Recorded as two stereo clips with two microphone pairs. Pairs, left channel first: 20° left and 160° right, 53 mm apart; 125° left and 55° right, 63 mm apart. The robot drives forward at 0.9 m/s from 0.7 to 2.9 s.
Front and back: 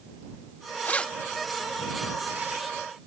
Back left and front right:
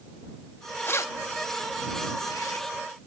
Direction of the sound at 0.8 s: 75° left.